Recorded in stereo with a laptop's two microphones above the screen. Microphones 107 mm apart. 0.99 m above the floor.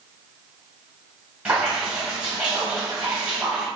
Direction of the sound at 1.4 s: 10° right (ahead or behind).